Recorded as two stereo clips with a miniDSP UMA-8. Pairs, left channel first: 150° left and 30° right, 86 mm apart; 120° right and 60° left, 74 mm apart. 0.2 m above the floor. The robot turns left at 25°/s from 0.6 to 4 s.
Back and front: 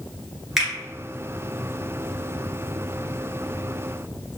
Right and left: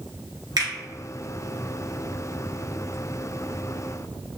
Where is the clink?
No clink in this recording.